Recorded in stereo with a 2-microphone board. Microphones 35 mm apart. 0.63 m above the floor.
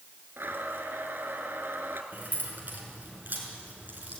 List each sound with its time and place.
0.4 s a blender: 80° right, 2 m
2.1 s keys jangling: 50° right (ahead or behind), 5.5 m